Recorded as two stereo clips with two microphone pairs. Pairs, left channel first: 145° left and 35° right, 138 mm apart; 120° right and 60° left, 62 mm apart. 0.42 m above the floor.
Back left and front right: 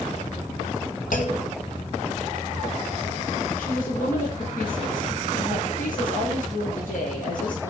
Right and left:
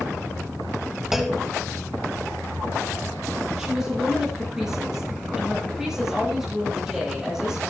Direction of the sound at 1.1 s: 145° left.